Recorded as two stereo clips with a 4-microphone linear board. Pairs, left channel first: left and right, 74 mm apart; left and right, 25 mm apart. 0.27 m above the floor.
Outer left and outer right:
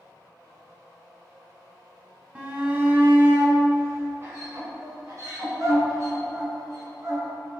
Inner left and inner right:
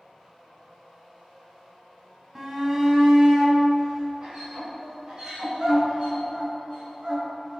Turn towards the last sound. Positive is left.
turn(degrees=-50)  # may be behind; listen again after turning